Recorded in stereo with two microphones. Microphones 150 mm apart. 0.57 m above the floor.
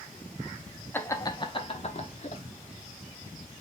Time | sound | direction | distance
0.9 | laughter | 15° left (ahead or behind) | 0.9 m